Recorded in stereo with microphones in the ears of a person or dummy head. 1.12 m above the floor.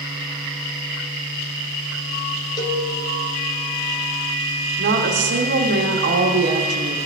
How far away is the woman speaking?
About 1.5 m.